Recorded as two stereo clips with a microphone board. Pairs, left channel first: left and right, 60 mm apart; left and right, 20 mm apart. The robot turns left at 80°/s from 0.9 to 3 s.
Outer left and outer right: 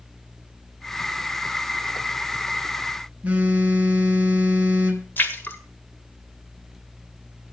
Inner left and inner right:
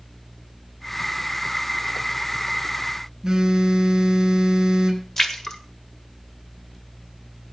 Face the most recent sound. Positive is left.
turn(degrees=35)  # may be behind; listen again after turning